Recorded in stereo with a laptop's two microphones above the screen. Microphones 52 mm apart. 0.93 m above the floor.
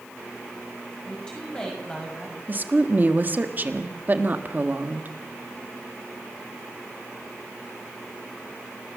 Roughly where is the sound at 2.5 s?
Right.